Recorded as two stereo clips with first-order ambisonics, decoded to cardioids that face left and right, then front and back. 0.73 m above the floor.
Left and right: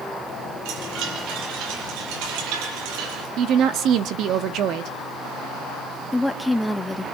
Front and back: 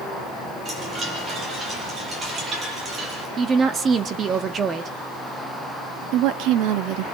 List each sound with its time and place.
0.7 s a chime: 110° right, 6 m
3.4 s a woman speaking: 120° right, 1.6 m
6.1 s a woman speaking: 175° left, 1.7 m